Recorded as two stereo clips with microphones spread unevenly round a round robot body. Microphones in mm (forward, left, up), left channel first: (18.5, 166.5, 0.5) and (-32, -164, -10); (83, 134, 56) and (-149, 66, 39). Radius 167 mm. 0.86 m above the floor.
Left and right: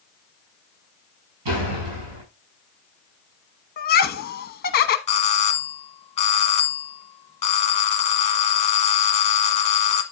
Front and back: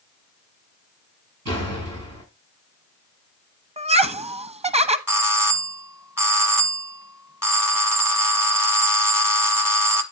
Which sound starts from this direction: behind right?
A door slam, at 1.4 s.